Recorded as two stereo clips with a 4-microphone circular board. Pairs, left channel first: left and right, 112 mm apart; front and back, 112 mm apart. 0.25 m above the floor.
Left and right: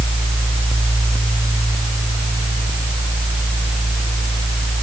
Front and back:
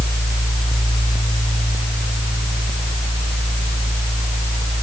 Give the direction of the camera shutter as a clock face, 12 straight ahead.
No camera shutter in this recording.